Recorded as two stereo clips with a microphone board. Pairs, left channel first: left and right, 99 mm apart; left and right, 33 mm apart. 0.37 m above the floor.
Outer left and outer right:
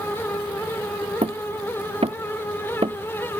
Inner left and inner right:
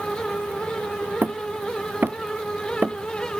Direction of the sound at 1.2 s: 85° right.